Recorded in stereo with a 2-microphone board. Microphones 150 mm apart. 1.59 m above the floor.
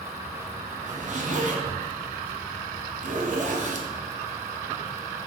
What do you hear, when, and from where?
0.9 s a zipper: 55° right (ahead or behind), 0.6 m